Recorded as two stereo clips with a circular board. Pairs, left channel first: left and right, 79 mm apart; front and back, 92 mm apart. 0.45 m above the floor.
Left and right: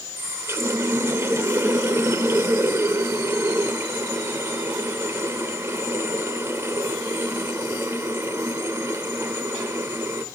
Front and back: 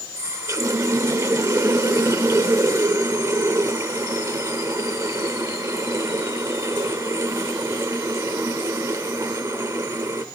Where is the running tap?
135° right, 0.8 m.